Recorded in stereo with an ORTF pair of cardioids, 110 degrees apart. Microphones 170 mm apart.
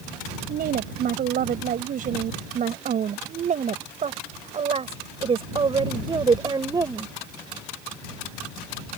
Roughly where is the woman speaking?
Ahead right.